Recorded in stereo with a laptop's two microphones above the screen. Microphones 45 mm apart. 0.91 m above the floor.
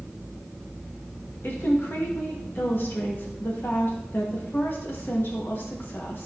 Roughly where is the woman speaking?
Left.